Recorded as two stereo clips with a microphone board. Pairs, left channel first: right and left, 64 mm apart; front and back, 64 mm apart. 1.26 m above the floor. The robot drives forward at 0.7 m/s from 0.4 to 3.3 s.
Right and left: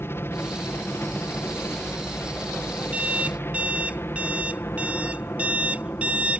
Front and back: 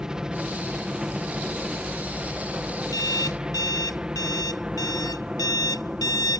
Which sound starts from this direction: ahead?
An alarm clock, at 2.9 s.